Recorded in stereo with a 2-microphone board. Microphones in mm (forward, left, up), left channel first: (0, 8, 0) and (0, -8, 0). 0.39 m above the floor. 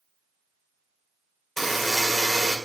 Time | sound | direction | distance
1.6 | a buzzer | 15° left (ahead or behind) | 2 m